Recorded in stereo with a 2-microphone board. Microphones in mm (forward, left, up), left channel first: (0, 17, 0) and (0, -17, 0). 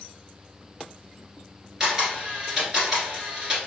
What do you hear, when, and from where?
1.8 s a camera shutter: 20° right (ahead or behind), 1.4 m